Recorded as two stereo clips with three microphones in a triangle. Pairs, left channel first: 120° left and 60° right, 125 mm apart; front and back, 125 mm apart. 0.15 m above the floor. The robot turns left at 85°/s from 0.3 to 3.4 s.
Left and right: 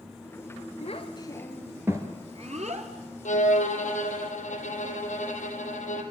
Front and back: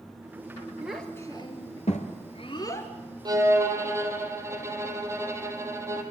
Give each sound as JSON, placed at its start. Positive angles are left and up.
{"t": 0.8, "sound": "a child speaking", "azimuth_deg": 100, "distance_m": 2.5}
{"t": 3.2, "sound": "a violin", "azimuth_deg": 125, "distance_m": 3.0}